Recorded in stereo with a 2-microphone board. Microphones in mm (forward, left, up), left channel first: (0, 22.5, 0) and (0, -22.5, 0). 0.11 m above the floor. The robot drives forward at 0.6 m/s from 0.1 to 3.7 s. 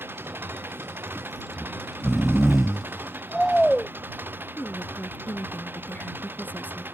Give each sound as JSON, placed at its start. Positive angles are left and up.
{"t": 0.0, "sound": "an engine running", "side_deg": -50}
{"t": 1.6, "sound": "snoring", "side_deg": 0}
{"t": 4.6, "sound": "a woman speaking", "side_deg": 35}